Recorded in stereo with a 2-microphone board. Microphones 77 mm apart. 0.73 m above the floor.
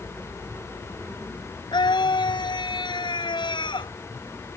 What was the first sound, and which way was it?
A scream, 75° left (ahead or behind).